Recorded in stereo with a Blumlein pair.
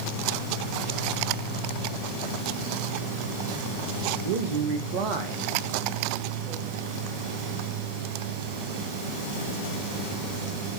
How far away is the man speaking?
About 1.1 m.